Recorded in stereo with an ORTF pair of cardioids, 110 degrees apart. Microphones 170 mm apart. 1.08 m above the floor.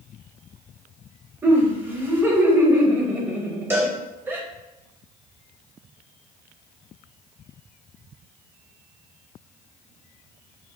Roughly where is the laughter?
Ahead.